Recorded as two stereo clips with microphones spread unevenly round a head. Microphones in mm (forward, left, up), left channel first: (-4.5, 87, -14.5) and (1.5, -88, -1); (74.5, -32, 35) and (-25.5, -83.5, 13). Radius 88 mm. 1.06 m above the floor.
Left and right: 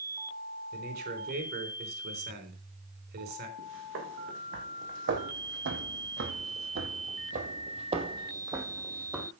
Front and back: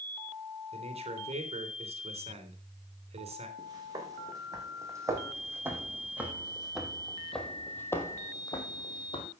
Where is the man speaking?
125° right, 3.5 m.